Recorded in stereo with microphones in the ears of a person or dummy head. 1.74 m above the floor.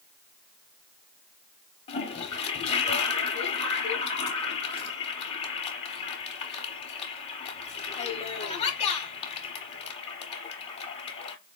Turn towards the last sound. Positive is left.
turn(degrees=35)  # may be behind; listen again after turning